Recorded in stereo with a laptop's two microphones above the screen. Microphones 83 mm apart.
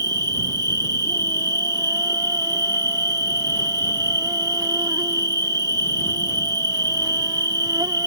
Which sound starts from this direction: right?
An insect, at 0.0 s.